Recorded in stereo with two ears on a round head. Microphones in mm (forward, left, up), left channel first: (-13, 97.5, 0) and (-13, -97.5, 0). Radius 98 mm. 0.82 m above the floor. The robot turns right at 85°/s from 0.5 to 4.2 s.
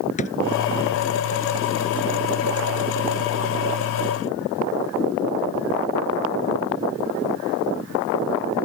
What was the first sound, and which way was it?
A drawer, 35° left (ahead or behind).